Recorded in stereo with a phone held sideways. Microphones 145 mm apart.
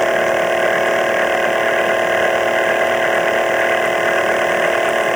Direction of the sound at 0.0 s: Centre (ahead or behind).